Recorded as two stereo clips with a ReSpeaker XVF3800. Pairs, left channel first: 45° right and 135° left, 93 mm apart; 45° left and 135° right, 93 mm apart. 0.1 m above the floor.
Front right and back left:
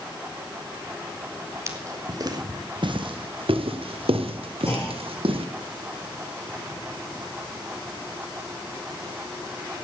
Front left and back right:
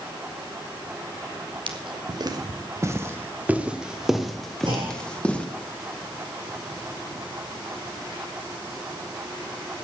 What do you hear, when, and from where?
1.7 s footsteps: 165° right, 2 m; by 5.5 s 120° left, 3 m
4.7 s a clunk: 105° right, 4.5 m